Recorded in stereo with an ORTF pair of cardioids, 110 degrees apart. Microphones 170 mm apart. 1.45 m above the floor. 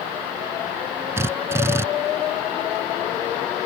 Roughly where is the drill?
Ahead.